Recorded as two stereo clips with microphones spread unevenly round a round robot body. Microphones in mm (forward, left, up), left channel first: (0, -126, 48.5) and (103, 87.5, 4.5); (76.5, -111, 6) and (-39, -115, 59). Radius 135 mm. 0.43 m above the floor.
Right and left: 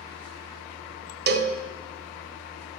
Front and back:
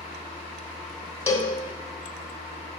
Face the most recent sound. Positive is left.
turn(degrees=40)